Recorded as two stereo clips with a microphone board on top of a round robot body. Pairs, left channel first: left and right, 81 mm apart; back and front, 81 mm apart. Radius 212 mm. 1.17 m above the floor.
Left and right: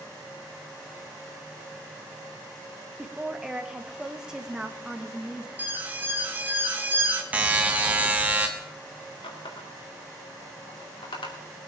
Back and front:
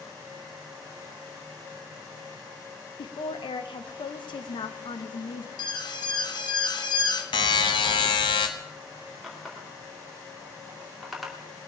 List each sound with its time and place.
3.0 s a woman speaking: 170° right, 1.2 m
5.6 s an alarm: 155° right, 1.7 m
7.3 s a buzzer: 160° right, 0.7 m
9.2 s a running tap: 90° left, 2.5 m